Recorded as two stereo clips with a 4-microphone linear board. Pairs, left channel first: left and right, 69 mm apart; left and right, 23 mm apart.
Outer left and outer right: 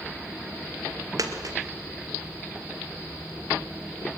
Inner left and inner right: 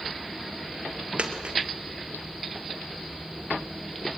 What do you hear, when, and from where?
1.2 s a dropped coin: 60° right (ahead or behind), 2.0 m